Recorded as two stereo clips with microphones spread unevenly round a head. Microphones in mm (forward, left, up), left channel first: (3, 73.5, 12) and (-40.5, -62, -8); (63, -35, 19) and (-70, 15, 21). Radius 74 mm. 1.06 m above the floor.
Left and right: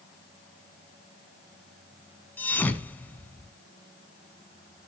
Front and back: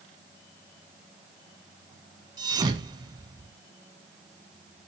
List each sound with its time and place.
2.4 s a thud: 125° left, 1.1 m